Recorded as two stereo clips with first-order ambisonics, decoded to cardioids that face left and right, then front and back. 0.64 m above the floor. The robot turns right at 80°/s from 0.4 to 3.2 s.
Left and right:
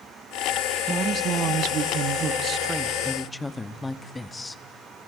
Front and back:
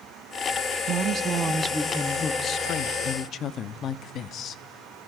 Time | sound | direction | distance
0.9 | a woman speaking | 165° right | 0.6 m